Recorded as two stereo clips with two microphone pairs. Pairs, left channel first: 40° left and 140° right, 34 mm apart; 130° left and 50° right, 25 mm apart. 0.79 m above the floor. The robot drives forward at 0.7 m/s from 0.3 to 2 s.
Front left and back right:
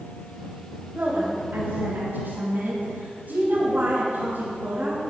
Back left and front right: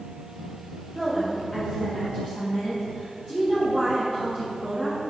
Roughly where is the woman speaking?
Behind.